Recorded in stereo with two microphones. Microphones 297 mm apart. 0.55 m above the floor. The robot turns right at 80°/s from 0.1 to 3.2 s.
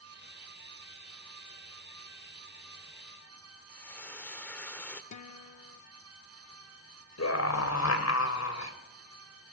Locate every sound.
3.7 s frying: 5° left (ahead or behind), 1.4 m
5.1 s a guitar: 75° left (ahead or behind), 0.6 m
7.2 s a scream: 65° left (ahead or behind), 3 m